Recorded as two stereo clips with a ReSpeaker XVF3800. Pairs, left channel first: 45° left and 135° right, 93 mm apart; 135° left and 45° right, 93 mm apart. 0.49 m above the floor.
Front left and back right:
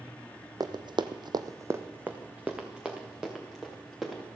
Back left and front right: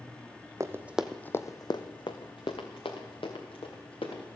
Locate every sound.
0.6 s running footsteps: 100° right, 1.1 m; by 4.2 s 135° left, 4.5 m